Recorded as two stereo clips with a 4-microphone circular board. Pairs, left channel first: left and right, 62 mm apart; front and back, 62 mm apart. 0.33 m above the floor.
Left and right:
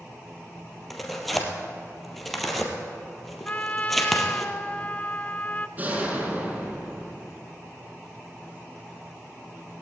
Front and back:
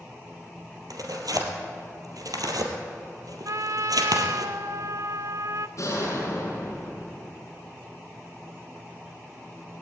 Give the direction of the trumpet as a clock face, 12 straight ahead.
7 o'clock.